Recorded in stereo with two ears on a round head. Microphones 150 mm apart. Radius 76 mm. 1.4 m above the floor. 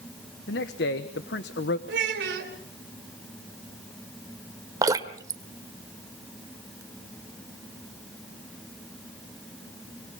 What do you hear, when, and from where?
0.5 s a man speaking: 75° left (ahead or behind), 1.2 m
1.9 s a child speaking: 75° right (ahead or behind), 3 m
4.8 s dripping: 20° right (ahead or behind), 1.4 m